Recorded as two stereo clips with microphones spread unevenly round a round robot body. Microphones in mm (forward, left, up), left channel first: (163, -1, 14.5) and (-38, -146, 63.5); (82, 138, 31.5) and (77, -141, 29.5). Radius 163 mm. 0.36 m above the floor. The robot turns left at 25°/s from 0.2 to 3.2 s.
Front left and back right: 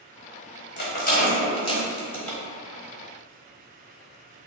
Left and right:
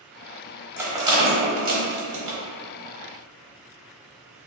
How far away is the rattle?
About 1.0 m.